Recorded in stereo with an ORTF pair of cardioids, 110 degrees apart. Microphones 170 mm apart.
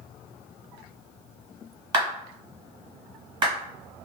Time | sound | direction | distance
1.9 | a clap | 30° right | 1.3 m